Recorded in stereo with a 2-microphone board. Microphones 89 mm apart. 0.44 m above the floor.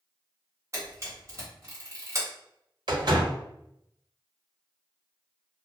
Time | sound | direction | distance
0.7 | a camera shutter | 35° right (ahead or behind) | 1.6 m
2.9 | a door slam | 65° right (ahead or behind) | 1.1 m